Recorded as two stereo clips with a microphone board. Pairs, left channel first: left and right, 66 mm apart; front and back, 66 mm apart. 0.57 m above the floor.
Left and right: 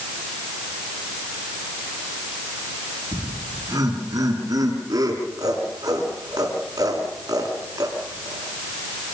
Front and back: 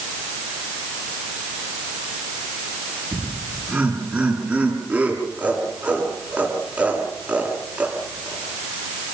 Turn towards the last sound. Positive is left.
turn(degrees=-110)